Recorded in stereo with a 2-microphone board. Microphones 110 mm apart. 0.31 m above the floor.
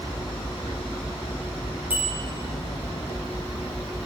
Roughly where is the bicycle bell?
Centre.